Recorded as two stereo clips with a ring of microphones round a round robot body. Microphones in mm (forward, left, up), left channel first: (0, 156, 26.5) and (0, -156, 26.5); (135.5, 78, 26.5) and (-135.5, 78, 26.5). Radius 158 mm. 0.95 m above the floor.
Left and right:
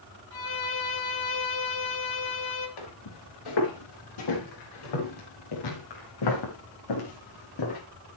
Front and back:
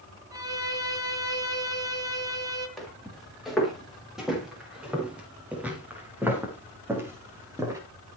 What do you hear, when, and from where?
0.3 s a violin: 105° left, 4 m
2.8 s footsteps: 90° left, 9.5 m; by 7.8 s 100° left, 6.5 m